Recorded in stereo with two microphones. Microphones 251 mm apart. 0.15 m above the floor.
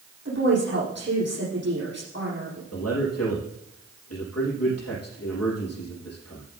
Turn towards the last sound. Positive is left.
turn(degrees=70)  # may be behind; listen again after turning